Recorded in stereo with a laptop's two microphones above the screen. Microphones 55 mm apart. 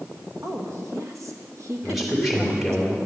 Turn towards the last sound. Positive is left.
turn(degrees=0)  # may be behind; listen again after turning